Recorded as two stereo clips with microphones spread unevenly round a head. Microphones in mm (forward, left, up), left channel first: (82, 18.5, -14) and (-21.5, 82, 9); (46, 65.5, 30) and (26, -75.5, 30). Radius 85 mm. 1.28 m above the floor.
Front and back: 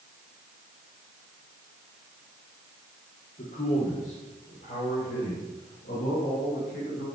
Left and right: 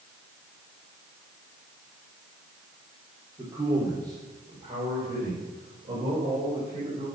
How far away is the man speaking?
About 3 m.